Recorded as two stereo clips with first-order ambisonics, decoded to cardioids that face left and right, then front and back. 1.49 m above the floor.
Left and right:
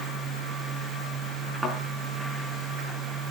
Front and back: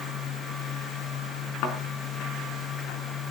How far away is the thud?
About 4.5 m.